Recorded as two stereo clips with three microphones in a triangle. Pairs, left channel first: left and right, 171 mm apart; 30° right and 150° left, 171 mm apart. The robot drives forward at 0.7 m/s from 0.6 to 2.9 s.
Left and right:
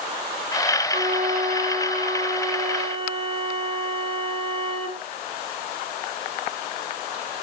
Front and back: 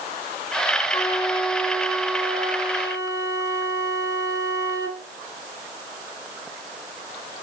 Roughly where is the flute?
Right.